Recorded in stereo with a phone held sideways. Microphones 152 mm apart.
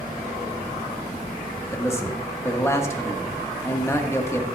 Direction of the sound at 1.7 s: 15° left (ahead or behind).